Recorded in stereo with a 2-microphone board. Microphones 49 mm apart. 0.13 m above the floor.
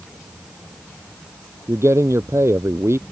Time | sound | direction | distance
1.7 | a man speaking | 65° right (ahead or behind) | ?